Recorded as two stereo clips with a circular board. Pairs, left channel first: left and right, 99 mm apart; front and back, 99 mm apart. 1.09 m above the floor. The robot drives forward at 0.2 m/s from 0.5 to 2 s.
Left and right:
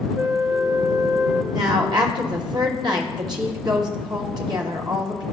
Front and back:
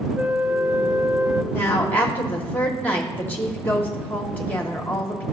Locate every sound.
0.1 s a flute: 115° right, 0.5 m; by 1.4 s 140° right, 0.6 m
1.5 s a woman speaking: 60° right, 0.9 m; by 5.2 s 70° right, 0.8 m